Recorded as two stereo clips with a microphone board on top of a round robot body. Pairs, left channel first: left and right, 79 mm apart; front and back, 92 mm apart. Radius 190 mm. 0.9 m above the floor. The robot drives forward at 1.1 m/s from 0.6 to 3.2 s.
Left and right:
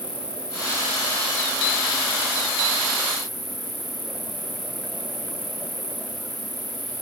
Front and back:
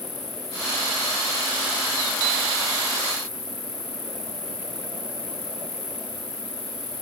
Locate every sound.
0.0 s an insect: 15° right; by 7.0 s 20° right